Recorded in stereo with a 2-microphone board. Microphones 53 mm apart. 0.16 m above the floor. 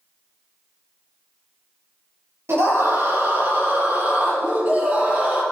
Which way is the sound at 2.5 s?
60° right (ahead or behind).